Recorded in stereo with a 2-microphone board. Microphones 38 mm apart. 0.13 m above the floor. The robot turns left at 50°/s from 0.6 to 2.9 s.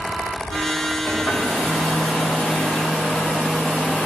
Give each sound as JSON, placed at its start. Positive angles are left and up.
{"t": 1.1, "sound": "a hair dryer", "azimuth_deg": 125, "distance_m": 1.9}